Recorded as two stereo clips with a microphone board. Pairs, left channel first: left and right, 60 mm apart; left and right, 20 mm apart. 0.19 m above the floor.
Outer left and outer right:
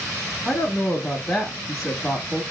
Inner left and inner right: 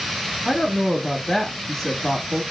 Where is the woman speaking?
Centre (ahead or behind), 1.0 m.